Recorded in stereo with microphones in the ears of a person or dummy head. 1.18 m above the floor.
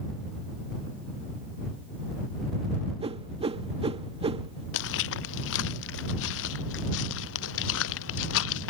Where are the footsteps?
65° left (ahead or behind); by 8.7 s 70° left (ahead or behind).